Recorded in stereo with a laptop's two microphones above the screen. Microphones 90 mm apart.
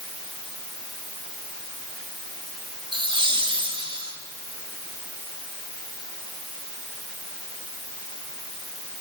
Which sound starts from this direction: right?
Laughter, at 2.9 s.